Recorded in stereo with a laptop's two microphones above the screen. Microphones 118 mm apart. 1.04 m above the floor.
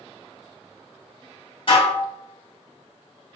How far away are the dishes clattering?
About 1.2 m.